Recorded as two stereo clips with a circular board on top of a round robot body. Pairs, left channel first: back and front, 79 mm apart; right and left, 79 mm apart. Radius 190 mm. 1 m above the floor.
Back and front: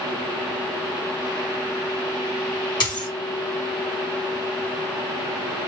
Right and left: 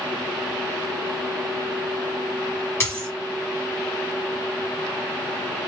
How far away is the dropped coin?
About 1.3 m.